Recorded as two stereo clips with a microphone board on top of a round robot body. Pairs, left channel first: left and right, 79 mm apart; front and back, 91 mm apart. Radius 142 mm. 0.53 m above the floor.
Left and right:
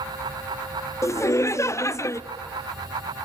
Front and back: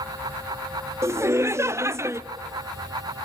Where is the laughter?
130° left, 1.1 m.